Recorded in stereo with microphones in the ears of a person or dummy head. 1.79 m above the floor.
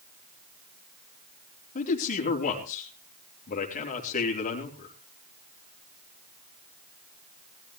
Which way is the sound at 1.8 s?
40° left (ahead or behind).